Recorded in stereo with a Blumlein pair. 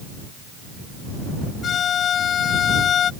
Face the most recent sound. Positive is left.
turn(degrees=25)